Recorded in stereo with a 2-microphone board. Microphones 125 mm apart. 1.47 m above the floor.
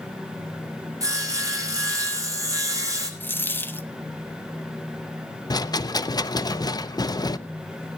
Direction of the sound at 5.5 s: 35° left (ahead or behind).